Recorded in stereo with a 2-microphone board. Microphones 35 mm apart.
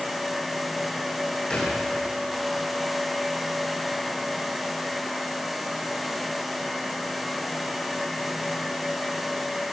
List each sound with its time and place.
1.5 s a thud: 25° left (ahead or behind), 8 m